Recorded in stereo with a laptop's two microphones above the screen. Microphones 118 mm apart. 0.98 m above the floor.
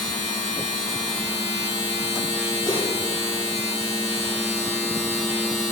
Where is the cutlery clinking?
35° left (ahead or behind), 3 m.